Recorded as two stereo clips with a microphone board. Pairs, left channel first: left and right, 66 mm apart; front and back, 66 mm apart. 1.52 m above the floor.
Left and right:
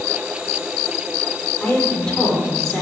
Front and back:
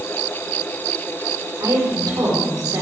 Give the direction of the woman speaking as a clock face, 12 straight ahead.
6 o'clock.